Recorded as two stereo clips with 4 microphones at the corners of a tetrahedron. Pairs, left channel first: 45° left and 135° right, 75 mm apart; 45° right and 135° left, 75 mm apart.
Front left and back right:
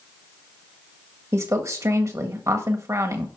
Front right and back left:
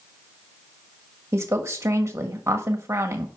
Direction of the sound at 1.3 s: 175° right.